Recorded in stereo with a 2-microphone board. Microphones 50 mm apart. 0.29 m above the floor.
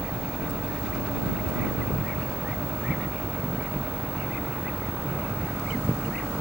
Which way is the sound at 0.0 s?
5° left (ahead or behind).